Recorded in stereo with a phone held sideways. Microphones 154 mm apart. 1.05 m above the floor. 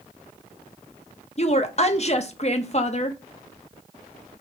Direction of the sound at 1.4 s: 45° left (ahead or behind).